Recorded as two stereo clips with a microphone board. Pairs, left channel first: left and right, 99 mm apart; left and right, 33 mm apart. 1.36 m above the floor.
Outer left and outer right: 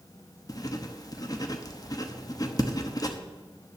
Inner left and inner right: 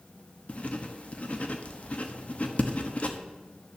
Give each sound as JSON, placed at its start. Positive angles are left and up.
{"t": 0.5, "sound": "writing", "side_deg": 40, "distance_m": 1.0}